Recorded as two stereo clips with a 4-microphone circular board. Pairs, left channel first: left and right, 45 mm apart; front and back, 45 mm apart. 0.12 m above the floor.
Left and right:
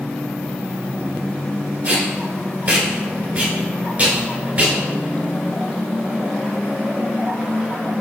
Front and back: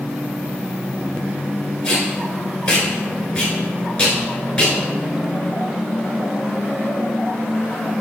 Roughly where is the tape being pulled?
Ahead right.